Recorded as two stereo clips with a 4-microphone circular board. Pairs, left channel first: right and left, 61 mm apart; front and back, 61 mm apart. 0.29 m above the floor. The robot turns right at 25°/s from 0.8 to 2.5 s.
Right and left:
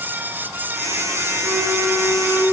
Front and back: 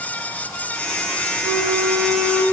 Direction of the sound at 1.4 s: 150° left.